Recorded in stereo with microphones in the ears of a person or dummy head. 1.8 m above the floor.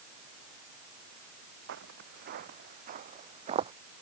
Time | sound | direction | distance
1.7 | footsteps | 55° right (ahead or behind) | ?